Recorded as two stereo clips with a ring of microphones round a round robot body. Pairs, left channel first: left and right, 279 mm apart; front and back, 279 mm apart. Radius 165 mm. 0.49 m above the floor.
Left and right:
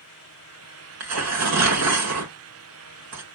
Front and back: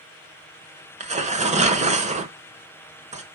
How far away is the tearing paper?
About 1.3 m.